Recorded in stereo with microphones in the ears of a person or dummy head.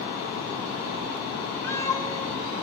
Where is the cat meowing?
20° left (ahead or behind), 2.5 m.